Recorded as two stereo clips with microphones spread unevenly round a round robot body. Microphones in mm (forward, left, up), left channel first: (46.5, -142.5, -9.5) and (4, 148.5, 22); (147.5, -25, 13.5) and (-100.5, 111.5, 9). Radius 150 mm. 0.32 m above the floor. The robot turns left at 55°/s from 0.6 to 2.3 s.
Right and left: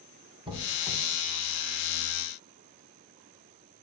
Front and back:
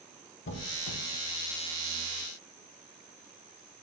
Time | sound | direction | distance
0.5 | a squeak | 25° left | 0.5 m